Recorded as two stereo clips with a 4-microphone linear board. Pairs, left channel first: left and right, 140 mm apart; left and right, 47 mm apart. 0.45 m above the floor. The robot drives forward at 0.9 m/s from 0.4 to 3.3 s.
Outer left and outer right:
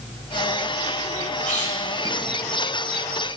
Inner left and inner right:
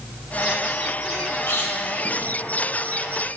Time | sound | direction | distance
1.5 | a squeak | 65° left (ahead or behind) | 1.4 m